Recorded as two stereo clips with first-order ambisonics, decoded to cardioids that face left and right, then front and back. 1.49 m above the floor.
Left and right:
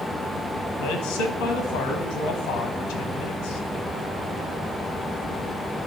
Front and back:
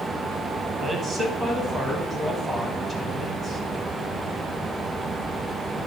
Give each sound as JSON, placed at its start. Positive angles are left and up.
{"t": 0.8, "sound": "a man speaking", "azimuth_deg": 115, "distance_m": 1.5}